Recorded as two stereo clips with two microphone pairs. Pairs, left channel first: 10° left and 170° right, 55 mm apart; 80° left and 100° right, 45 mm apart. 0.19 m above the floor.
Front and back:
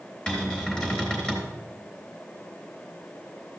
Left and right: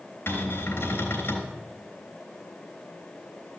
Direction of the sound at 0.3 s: 80° left.